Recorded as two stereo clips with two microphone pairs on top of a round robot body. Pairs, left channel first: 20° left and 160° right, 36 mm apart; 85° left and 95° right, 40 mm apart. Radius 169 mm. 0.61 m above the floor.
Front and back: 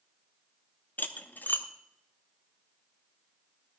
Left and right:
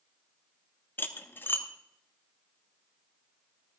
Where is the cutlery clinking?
50° left, 0.8 m.